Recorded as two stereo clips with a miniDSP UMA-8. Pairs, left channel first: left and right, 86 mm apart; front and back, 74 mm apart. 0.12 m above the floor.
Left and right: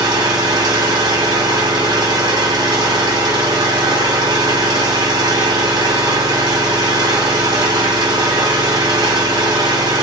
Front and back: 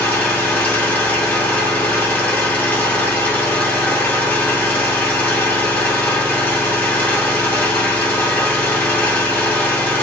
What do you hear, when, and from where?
0.0 s an engine running: 60° right, 1.4 m